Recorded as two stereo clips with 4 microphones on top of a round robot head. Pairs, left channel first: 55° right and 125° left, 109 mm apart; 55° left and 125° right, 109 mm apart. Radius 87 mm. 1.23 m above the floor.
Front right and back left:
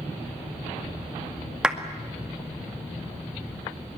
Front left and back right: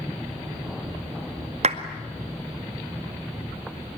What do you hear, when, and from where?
1.6 s a clap: 150° right, 2 m